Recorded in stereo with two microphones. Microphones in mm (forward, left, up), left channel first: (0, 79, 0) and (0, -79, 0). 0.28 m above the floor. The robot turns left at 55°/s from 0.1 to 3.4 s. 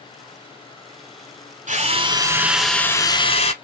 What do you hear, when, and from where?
1.7 s a drill: 125° right, 1.2 m; by 3.5 s 140° left, 1.2 m